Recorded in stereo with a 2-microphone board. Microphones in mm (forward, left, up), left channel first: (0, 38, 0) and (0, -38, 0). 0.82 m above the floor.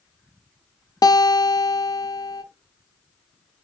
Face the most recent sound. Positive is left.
turn(degrees=60)  # may be behind; listen again after turning